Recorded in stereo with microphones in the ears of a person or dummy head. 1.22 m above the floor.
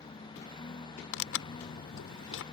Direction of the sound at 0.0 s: 25° left (ahead or behind).